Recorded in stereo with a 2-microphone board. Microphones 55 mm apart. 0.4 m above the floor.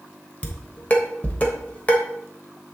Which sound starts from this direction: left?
Dishes clattering, at 0.4 s.